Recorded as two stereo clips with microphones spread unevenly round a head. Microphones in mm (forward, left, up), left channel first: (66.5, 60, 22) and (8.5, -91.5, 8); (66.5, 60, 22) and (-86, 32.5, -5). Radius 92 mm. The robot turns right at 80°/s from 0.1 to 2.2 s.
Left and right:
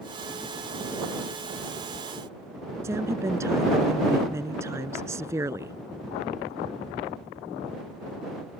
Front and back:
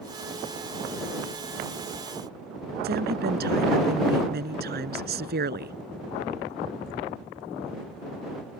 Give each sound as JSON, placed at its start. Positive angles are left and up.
{"t": 2.8, "sound": "a woman speaking", "azimuth_deg": 175}